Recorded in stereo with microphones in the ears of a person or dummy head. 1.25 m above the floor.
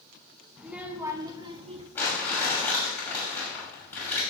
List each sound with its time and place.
0.6 s a child speaking: 5° right (ahead or behind), 1.4 m; by 1.9 s 35° right (ahead or behind), 1.9 m
1.9 s crumpling: 10° left (ahead or behind), 6 m